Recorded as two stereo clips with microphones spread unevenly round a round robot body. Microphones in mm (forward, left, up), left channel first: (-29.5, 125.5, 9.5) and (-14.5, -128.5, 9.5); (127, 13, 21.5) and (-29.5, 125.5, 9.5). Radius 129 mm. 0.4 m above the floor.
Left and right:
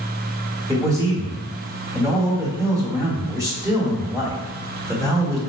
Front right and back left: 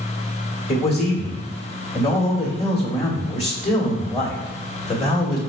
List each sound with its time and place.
0.7 s a man speaking: 20° right, 1.4 m